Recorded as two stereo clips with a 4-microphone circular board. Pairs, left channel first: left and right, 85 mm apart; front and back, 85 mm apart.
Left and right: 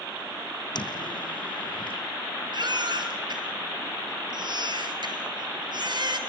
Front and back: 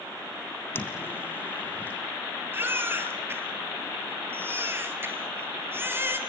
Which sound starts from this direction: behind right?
A baby crying, at 2.5 s.